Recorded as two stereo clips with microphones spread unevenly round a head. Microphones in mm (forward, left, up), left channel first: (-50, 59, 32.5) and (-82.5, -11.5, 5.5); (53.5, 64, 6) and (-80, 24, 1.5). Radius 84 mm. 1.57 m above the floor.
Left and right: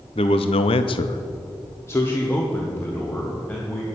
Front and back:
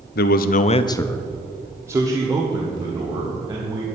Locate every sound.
0.1 s a man speaking: 15° left, 0.8 m; by 3.9 s 140° left, 3 m